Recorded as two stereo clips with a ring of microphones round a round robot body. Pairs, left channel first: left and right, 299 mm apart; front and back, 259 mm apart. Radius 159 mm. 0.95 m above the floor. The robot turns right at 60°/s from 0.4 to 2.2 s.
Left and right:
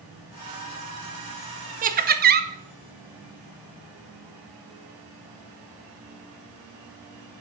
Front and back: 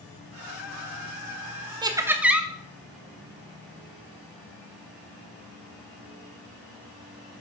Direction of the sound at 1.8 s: 125° right.